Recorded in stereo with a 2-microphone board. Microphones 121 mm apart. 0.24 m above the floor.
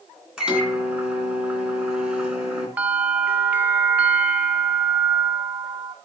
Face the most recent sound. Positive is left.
turn(degrees=-10)  # may be behind; listen again after turning